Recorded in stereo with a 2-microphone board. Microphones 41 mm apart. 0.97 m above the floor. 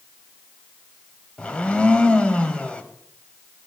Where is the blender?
25° left (ahead or behind), 0.8 m.